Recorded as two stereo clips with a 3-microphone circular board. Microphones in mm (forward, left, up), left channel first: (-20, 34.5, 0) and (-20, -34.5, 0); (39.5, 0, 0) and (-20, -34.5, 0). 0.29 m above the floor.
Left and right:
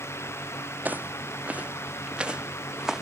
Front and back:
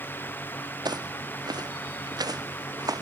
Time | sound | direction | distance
0.8 | footsteps | 155° right | ?